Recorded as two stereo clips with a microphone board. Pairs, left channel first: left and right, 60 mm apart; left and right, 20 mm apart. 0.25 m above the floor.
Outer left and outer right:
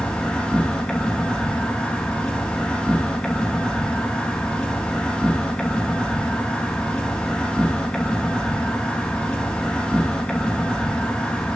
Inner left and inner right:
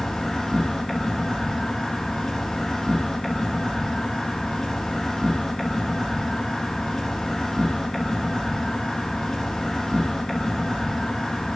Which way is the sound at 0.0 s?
15° left (ahead or behind).